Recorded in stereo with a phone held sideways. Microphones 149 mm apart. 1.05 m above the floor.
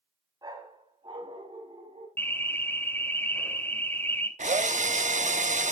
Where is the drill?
55° right (ahead or behind), 0.8 m.